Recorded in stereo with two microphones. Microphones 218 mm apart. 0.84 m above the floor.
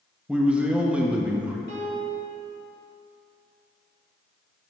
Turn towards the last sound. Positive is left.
turn(degrees=50)  # may be behind; listen again after turning